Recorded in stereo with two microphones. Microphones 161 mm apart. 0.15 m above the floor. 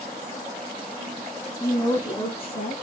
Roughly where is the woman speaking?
Centre.